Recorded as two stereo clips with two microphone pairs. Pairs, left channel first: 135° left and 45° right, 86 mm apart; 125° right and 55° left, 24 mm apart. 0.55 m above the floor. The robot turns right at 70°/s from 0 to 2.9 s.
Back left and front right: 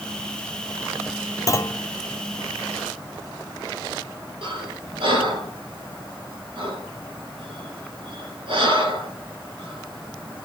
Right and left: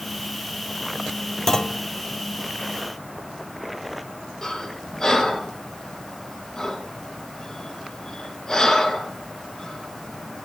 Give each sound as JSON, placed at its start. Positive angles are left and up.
{"t": 1.5, "sound": "a clunk", "azimuth_deg": 170, "distance_m": 0.6}
{"t": 4.4, "sound": "breathing", "azimuth_deg": -50, "distance_m": 4.5}